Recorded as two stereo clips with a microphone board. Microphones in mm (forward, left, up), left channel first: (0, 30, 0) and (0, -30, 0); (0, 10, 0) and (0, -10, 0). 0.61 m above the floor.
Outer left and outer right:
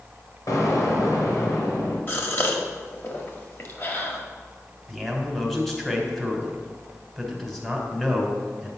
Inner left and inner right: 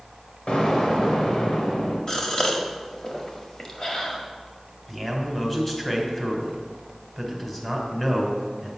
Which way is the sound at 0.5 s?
75° left (ahead or behind).